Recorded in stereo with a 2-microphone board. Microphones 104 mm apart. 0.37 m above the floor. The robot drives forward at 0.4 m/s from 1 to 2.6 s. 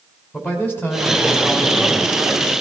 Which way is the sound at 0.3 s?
20° left (ahead or behind).